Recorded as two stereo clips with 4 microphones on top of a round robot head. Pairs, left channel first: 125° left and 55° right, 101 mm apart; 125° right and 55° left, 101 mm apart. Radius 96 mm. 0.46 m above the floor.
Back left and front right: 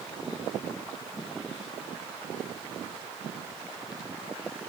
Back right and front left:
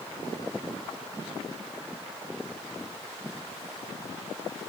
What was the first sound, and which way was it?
Only background noise.